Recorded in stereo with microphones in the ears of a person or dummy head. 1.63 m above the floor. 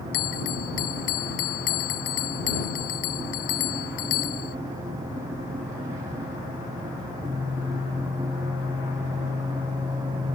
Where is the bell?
65° left (ahead or behind).